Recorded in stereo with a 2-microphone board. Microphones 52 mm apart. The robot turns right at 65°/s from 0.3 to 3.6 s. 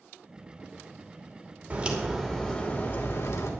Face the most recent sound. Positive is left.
turn(degrees=95)